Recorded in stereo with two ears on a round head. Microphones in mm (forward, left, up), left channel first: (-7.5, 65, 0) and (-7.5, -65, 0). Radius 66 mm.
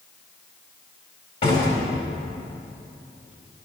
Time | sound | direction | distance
1.4 | a door slam | 50° left (ahead or behind) | 5 m